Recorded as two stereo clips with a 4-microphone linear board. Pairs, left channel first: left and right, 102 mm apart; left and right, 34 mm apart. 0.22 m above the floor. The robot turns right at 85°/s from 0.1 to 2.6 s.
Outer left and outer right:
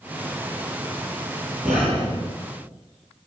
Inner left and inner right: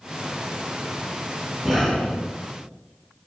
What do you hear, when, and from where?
1.6 s breathing: straight ahead, 1.3 m; by 2.3 s 55° left, 1.3 m